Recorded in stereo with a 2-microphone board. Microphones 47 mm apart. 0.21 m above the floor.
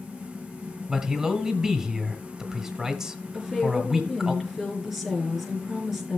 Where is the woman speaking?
5° right (ahead or behind), 4 m.